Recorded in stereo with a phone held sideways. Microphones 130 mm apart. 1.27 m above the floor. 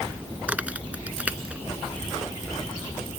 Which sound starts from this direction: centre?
A crack, at 0.5 s.